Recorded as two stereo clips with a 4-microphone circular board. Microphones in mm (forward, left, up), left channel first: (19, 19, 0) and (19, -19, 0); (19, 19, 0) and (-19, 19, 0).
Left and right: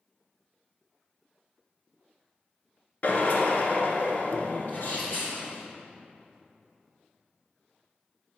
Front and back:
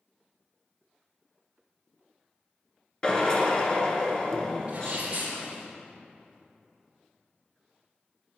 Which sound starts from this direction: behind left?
A sneeze, at 4.7 s.